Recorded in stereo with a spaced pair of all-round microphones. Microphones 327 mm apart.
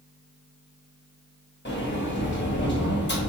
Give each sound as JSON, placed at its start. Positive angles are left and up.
{"t": 1.6, "sound": "a sliding door", "side_deg": 35, "distance_m": 0.8}